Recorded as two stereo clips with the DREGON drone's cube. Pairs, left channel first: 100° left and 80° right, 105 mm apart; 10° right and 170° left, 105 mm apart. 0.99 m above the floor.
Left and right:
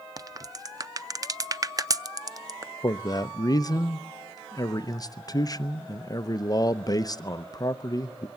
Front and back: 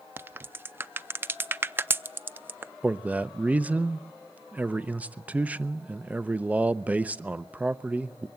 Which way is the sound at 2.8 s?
100° left.